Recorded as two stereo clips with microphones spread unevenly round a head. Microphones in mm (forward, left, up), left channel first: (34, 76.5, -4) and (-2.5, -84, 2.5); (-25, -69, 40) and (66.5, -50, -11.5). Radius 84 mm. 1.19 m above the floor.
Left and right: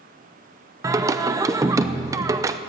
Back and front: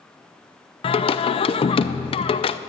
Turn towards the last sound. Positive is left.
turn(degrees=-155)